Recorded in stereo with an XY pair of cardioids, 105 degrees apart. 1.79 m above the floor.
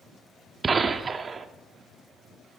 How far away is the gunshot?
About 0.9 m.